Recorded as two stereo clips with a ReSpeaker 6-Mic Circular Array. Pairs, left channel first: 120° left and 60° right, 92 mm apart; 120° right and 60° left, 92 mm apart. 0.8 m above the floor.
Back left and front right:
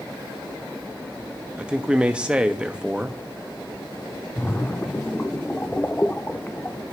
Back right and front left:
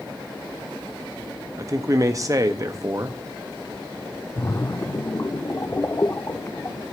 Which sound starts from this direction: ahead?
A man speaking, at 1.6 s.